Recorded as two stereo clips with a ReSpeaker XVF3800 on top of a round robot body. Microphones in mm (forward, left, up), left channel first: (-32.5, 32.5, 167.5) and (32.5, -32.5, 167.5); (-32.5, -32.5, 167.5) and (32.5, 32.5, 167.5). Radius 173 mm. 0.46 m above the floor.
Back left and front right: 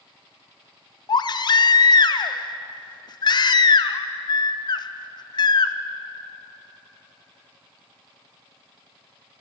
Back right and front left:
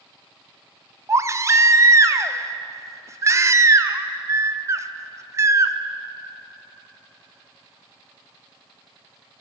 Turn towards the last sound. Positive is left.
turn(degrees=100)